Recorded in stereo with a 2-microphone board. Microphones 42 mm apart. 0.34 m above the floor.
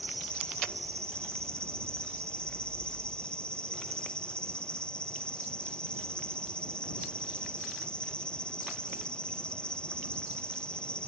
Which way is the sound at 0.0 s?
25° left (ahead or behind).